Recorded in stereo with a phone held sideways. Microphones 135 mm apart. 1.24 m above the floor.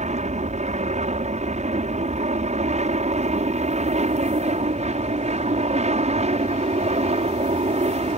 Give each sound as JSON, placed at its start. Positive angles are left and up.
{"t": 0.0, "sound": "an aircraft", "side_deg": -60}